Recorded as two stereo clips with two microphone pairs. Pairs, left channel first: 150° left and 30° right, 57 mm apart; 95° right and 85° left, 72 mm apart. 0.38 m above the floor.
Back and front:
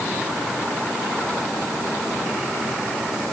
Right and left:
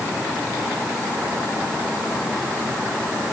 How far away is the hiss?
No hiss in this recording.